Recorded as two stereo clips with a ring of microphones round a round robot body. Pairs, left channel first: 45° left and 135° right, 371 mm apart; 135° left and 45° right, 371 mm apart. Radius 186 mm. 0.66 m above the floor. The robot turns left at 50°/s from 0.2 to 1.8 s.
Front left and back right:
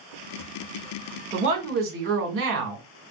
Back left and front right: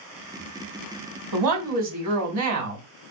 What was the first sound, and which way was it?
A woman speaking, 60° right.